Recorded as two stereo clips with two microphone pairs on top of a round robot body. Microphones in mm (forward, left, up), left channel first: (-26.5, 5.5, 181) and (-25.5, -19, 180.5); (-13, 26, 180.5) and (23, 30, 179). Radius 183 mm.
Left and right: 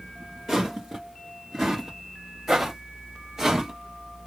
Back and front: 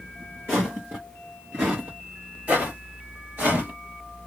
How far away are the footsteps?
About 1.1 m.